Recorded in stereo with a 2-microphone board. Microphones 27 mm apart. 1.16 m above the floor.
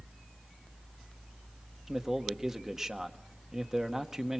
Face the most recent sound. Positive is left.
turn(degrees=-20)  # may be behind; listen again after turning